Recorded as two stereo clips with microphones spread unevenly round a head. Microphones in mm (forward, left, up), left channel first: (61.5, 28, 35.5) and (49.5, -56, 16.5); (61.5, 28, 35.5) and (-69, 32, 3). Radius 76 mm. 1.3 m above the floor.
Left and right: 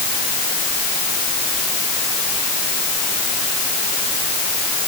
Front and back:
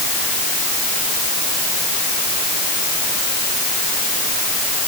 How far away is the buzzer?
I don't hear a buzzer.